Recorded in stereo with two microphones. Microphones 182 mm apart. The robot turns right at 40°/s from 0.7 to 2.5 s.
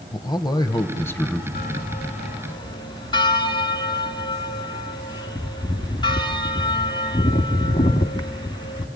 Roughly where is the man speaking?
Left.